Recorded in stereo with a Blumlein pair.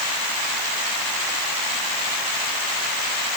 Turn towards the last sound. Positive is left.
No sound to turn to.